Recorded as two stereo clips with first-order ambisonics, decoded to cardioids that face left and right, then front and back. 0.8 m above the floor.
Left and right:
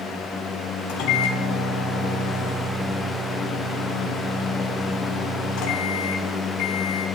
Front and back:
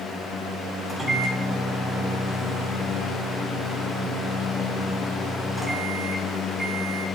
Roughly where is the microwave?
Left.